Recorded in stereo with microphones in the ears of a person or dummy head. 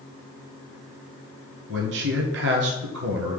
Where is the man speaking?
60° right (ahead or behind), 1.1 m.